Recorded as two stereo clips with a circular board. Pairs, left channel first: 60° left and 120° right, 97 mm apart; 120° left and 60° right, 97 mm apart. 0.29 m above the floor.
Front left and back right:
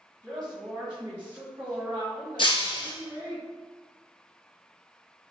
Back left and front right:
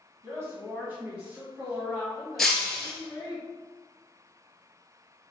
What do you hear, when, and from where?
0.2 s a woman speaking: 105° right, 1.4 m; by 3.4 s 175° right, 1.9 m
2.4 s breaking glass: 35° left, 0.7 m